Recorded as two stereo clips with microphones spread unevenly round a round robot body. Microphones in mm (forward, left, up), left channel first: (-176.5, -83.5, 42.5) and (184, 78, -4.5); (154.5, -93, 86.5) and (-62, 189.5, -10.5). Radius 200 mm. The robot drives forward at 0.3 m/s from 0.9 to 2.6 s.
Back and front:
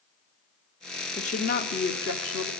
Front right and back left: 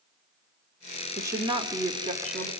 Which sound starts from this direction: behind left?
A woman speaking, at 1.2 s.